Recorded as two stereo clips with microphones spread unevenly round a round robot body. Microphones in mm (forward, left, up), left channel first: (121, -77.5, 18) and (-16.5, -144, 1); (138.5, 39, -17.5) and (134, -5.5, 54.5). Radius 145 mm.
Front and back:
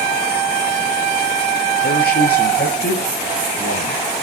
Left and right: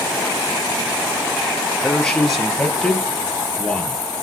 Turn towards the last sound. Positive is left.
turn(degrees=10)